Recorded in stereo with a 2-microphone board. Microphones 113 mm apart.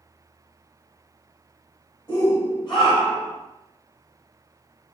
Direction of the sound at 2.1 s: 40° left (ahead or behind).